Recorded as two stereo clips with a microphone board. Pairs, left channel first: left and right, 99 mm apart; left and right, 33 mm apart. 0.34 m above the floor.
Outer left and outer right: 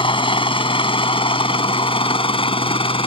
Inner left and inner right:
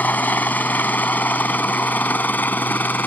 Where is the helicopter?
60° left (ahead or behind); by 3.1 s 65° left (ahead or behind).